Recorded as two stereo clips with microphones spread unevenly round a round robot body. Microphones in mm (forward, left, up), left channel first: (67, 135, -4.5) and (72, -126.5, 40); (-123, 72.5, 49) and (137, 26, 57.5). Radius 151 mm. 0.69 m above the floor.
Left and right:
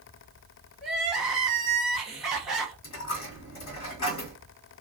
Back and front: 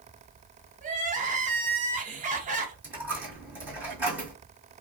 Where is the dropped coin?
70° left, 1.6 m.